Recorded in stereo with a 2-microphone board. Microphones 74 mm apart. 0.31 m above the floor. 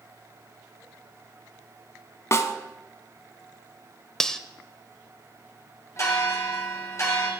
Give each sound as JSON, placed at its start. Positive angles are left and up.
{"t": 2.3, "sound": "a snare drum", "side_deg": 40, "distance_m": 0.9}
{"t": 4.2, "sound": "cutlery clinking", "side_deg": 10, "distance_m": 0.6}
{"t": 6.0, "sound": "a bell", "side_deg": 45, "distance_m": 2.5}